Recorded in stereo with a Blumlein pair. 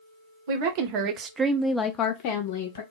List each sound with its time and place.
0.5 s a woman speaking: 50° right, 0.9 m; by 2.8 s 60° left, 0.8 m